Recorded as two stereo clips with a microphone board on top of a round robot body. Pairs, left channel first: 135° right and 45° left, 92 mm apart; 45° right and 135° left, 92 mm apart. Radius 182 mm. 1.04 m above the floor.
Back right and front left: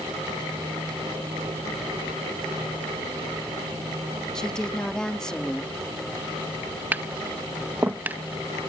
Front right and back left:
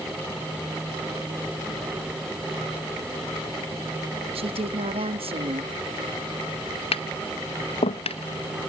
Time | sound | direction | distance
4.3 | a woman speaking | 140° left | ?
6.9 | tapping | 30° right | ?